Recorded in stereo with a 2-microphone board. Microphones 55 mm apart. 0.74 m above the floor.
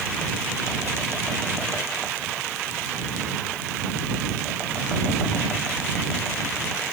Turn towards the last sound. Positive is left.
No sound to turn to.